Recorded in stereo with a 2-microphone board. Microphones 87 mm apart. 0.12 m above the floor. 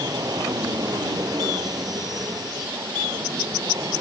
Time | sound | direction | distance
0.0 | an aircraft | 50° right (ahead or behind) | ?